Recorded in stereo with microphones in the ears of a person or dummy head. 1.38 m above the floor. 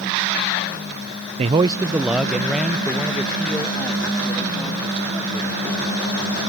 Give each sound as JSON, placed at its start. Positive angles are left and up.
{"t": 1.4, "sound": "a man speaking", "side_deg": -35}